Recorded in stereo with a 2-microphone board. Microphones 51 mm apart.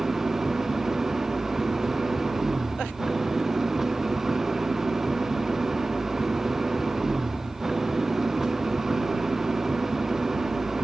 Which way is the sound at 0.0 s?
5° right (ahead or behind).